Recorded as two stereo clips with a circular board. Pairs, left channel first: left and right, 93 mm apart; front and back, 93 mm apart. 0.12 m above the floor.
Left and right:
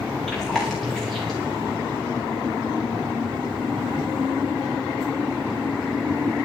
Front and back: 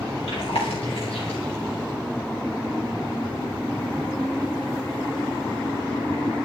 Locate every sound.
0.3 s chewing: straight ahead, 9 m